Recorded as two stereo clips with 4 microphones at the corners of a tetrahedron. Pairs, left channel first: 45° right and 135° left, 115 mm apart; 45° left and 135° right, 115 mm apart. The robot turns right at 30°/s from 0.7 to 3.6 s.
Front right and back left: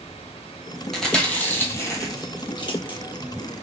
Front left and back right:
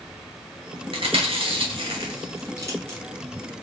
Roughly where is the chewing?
Behind right.